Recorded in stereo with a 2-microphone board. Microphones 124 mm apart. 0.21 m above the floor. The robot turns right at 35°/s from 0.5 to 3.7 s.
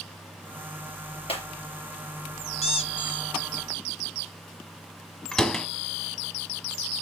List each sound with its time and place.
1.3 s breaking glass: 50° left (ahead or behind), 2.5 m; by 1.5 s 45° left (ahead or behind), 2.5 m
2.6 s a squeak: 55° left (ahead or behind), 0.9 m; by 3.3 s 35° left (ahead or behind), 0.9 m
5.3 s a door slam: 5° left (ahead or behind), 1.2 m